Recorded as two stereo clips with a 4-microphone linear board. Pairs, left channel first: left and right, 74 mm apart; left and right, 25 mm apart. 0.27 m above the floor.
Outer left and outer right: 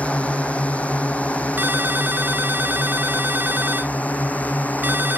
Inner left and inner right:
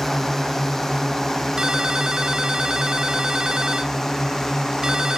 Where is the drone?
15° left (ahead or behind); by 5.2 s 20° left (ahead or behind).